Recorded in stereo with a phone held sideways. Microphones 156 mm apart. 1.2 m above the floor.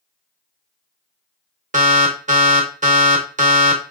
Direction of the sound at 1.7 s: 55° right (ahead or behind).